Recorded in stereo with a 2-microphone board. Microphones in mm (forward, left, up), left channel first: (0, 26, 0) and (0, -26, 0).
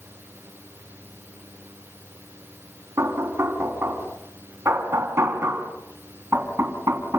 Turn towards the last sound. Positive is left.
turn(degrees=-60)  # may be behind; listen again after turning